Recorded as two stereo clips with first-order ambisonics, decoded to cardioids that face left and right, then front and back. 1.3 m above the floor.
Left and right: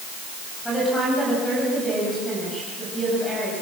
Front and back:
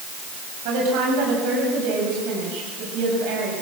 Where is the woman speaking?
175° left, 7.5 m.